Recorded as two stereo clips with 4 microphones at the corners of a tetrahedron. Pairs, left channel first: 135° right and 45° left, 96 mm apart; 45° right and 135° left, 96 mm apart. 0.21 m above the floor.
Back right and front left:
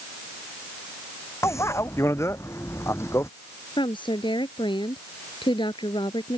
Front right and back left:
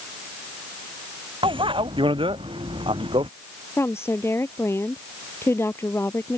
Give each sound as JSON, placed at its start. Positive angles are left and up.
{"t": 1.4, "sound": "a bicycle bell", "azimuth_deg": 165}
{"t": 3.8, "sound": "a woman speaking", "azimuth_deg": -105}